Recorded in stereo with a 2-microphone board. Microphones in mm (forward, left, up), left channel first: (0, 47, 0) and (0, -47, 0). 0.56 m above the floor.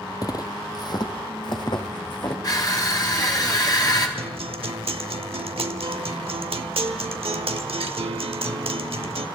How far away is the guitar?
About 0.8 m.